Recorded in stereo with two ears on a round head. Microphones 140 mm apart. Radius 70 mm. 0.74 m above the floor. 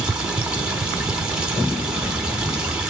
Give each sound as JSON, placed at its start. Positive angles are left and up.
{"t": 0.0, "sound": "running water", "side_deg": -5, "distance_m": 1.3}